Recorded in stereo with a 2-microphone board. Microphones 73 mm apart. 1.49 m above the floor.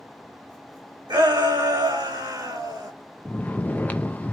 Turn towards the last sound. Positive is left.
turn(degrees=25)  # may be behind; listen again after turning